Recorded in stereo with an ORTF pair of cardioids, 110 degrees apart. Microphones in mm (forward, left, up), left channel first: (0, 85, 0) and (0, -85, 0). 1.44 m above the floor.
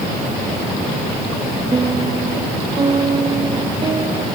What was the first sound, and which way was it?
A piano, 30° right.